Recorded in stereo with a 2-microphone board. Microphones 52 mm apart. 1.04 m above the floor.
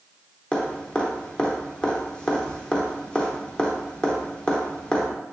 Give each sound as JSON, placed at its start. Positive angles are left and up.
{"t": 0.5, "sound": "dripping", "side_deg": 15, "distance_m": 0.7}